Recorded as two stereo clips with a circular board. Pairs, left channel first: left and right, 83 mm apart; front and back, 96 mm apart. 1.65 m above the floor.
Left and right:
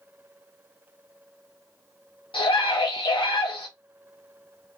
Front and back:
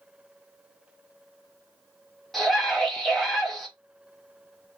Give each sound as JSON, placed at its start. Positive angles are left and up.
{"t": 2.3, "sound": "a scream", "azimuth_deg": 90, "distance_m": 0.6}